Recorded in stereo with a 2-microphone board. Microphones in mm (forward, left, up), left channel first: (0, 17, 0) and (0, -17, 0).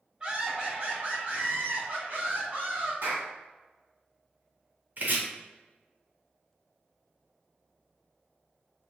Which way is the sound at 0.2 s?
25° right (ahead or behind).